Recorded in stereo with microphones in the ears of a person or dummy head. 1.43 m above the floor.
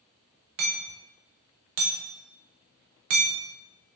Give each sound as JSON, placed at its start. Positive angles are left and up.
{"t": 0.6, "sound": "hammering", "side_deg": -45, "distance_m": 0.8}